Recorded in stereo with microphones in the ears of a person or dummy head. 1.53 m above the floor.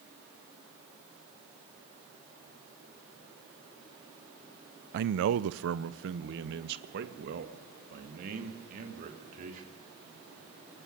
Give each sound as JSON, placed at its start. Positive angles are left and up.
{"t": 4.9, "sound": "a man speaking", "side_deg": -55, "distance_m": 0.7}